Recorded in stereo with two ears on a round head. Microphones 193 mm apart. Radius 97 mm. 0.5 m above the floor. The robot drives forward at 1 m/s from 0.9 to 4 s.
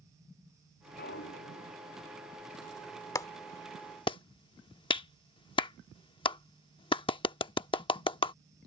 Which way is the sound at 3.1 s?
15° left (ahead or behind).